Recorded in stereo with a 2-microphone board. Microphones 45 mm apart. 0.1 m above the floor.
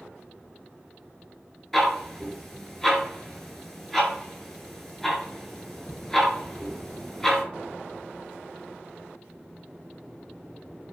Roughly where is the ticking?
Centre.